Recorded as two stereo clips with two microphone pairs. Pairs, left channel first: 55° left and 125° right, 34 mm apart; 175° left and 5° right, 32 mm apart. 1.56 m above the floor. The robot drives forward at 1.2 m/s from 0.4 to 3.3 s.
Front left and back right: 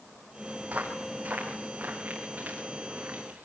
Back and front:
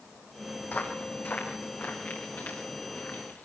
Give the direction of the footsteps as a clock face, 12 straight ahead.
5 o'clock.